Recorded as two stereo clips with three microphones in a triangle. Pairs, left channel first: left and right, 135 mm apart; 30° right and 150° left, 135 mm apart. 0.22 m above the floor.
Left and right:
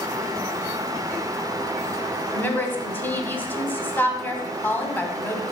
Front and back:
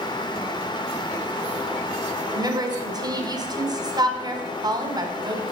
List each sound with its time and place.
2.3 s a woman speaking: 150° left, 1.3 m